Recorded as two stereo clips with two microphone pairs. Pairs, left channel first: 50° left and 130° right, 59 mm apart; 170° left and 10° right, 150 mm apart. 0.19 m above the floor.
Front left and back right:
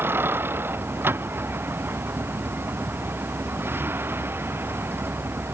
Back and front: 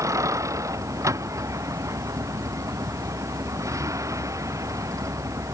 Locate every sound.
0.0 s a vehicle: 80° right